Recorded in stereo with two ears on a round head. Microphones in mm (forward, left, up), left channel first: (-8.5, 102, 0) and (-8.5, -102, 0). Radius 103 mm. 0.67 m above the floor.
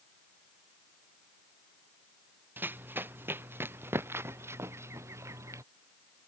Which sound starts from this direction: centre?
Running footsteps, at 2.6 s.